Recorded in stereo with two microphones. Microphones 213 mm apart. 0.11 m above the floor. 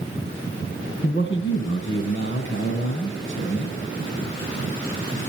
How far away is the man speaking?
About 2.5 m.